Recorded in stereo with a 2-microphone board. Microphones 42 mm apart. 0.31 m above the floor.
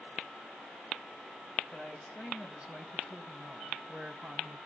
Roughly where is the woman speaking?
Centre.